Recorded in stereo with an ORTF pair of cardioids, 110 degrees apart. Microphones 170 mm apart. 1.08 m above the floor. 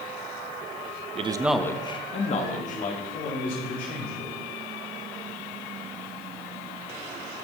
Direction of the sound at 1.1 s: 40° right.